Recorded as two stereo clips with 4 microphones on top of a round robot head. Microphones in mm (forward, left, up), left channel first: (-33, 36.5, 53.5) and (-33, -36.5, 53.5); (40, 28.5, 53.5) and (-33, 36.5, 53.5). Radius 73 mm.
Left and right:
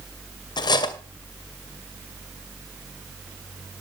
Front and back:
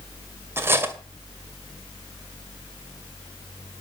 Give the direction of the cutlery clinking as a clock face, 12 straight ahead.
8 o'clock.